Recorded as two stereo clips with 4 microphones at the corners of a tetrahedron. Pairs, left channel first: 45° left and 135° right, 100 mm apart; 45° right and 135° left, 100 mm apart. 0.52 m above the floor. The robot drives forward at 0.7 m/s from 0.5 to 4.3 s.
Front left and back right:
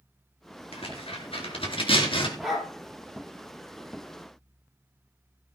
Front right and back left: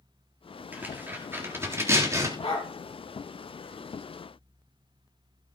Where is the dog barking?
45° right, 5 m.